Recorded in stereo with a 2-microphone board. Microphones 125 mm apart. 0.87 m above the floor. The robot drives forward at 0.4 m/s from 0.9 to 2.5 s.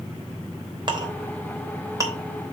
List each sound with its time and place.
0.9 s a clink: 40° right (ahead or behind), 1.0 m; by 2.2 s 25° right (ahead or behind), 1.4 m